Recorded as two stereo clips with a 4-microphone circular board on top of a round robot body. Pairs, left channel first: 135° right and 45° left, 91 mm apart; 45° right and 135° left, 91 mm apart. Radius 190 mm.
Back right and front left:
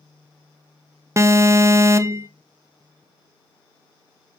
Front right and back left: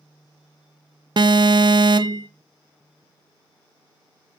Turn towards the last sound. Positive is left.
turn(degrees=105)